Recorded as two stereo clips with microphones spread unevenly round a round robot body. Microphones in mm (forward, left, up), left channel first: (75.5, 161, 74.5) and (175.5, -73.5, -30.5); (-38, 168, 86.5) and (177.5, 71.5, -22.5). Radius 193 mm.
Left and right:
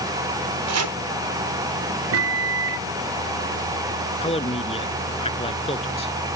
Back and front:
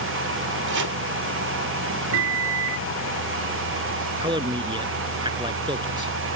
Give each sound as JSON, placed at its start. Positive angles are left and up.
{"t": 0.7, "sound": "chopping", "azimuth_deg": -65}
{"t": 2.1, "sound": "a microwave", "azimuth_deg": -45}
{"t": 4.2, "sound": "a man speaking", "azimuth_deg": 50}